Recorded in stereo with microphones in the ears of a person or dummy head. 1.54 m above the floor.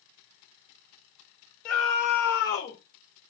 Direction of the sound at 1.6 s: 15° left (ahead or behind).